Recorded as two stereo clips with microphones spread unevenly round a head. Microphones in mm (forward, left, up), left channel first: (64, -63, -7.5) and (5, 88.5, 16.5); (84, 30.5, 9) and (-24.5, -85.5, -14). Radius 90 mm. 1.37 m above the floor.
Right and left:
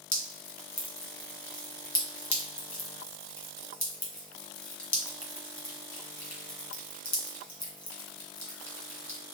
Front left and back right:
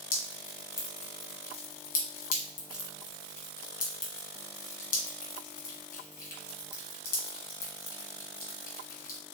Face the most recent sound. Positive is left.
turn(degrees=10)